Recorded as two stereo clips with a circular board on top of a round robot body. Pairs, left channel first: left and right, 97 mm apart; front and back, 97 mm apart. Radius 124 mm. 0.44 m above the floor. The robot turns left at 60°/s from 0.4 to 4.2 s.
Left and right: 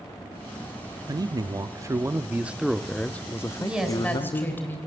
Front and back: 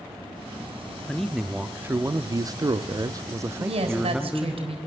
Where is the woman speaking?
165° right, 3.5 m; by 4.8 s 160° left, 3.5 m.